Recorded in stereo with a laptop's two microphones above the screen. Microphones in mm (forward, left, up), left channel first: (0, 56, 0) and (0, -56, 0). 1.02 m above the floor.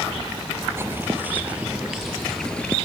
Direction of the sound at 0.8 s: 20° right (ahead or behind).